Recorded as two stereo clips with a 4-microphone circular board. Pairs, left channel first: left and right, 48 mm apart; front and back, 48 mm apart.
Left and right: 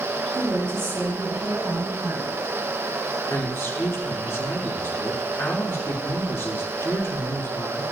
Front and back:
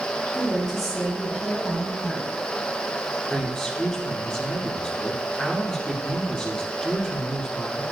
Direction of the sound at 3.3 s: 75° left.